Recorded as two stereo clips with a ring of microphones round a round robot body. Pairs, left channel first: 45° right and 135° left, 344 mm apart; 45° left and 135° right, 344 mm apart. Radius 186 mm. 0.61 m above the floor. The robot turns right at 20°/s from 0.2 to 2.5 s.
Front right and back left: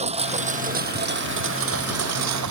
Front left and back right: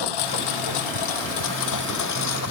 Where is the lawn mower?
65° left; by 2.5 s 95° left.